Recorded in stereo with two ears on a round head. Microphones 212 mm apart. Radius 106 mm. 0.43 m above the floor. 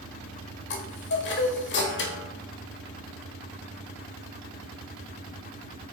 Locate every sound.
0.7 s a chime: 50° left (ahead or behind), 1.3 m